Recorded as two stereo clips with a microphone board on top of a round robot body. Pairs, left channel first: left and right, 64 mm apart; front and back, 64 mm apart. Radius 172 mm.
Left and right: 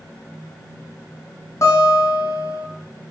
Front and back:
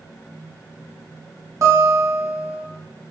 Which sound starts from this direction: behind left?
A guitar, at 1.6 s.